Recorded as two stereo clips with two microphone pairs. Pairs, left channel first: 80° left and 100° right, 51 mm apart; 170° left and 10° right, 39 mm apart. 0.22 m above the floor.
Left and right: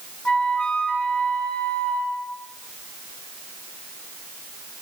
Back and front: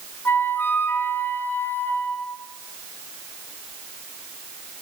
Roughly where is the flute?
Behind left.